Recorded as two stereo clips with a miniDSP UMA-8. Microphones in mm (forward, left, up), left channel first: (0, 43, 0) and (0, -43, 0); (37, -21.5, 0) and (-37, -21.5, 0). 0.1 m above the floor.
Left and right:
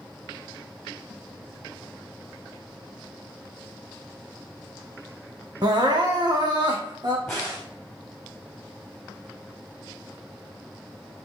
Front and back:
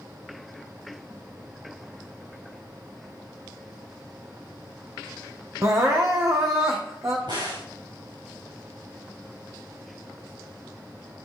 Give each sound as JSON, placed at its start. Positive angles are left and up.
{"t": 5.6, "sound": "crying", "azimuth_deg": -130, "distance_m": 1.8}
{"t": 7.3, "sound": "a crack", "azimuth_deg": 175, "distance_m": 6.0}